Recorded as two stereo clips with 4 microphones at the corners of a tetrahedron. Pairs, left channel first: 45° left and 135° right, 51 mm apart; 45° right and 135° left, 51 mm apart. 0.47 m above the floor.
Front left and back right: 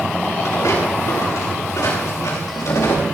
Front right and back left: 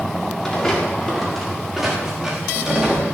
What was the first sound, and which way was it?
Footsteps, 35° left.